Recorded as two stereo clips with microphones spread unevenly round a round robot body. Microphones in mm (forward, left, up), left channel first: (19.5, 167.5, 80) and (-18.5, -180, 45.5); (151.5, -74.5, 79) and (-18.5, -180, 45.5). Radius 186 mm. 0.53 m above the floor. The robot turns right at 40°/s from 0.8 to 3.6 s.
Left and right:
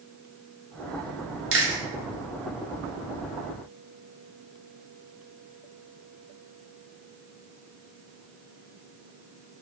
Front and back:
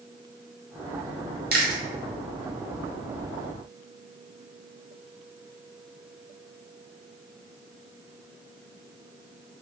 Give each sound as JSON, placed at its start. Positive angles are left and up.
{"t": 1.5, "sound": "chewing", "azimuth_deg": -140, "distance_m": 1.4}